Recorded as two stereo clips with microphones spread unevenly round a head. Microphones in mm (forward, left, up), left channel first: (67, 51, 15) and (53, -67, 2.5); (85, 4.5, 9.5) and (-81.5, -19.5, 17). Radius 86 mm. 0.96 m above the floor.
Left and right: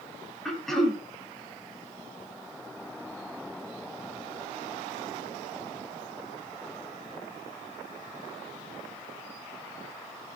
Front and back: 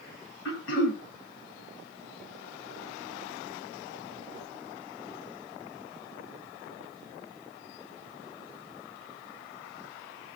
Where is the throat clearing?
5° right, 2.5 m.